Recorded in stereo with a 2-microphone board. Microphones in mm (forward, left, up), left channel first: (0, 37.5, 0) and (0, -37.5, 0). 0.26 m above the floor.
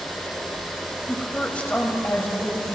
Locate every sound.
1.1 s a woman speaking: 5° left (ahead or behind), 1.2 m; by 2.8 s 30° left (ahead or behind), 1.9 m